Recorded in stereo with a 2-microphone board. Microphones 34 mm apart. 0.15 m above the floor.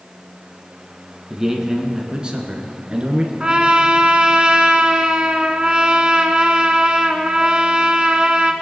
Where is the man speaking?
15° right (ahead or behind), 1.4 m; by 3.3 s 35° right (ahead or behind), 2 m.